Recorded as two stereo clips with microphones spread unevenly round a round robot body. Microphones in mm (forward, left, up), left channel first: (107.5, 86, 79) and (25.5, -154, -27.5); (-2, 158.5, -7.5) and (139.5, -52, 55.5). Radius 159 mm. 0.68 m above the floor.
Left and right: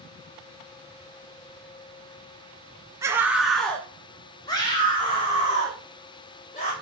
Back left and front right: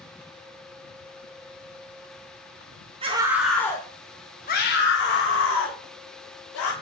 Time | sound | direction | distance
3.0 | a scream | 130° right | 0.9 m